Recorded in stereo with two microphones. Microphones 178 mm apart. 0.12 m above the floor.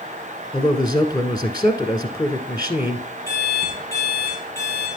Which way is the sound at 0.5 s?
25° left (ahead or behind).